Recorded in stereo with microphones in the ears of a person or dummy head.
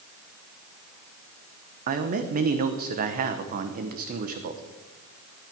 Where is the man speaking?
50° right (ahead or behind), 1.0 m.